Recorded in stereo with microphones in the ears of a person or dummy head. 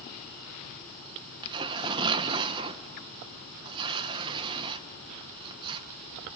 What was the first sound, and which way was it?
Tearing paper, 25° right (ahead or behind).